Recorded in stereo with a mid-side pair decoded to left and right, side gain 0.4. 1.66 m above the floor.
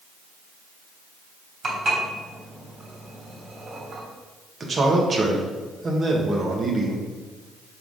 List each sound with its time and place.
1.6 s dishes clattering: 55° right, 3.5 m
4.6 s a man speaking: 45° right, 1.9 m